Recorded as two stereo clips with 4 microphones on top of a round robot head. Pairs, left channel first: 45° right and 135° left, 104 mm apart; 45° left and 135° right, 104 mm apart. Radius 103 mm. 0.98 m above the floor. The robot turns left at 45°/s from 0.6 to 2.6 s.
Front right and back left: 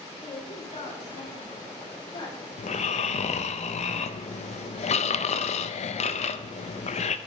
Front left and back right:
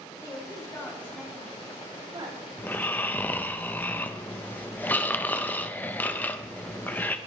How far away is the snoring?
About 0.8 m.